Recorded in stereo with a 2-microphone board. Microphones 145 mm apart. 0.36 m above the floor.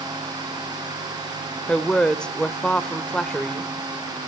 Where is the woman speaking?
5° left (ahead or behind), 1.0 m.